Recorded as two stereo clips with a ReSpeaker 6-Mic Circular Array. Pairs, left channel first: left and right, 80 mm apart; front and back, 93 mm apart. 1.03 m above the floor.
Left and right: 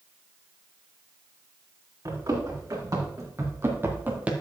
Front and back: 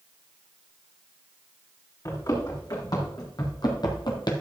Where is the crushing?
I don't hear crushing.